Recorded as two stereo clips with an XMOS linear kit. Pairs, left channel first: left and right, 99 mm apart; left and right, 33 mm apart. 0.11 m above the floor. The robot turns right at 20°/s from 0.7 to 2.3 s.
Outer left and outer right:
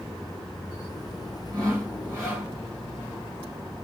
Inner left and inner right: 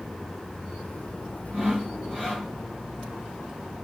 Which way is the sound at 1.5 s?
40° right (ahead or behind).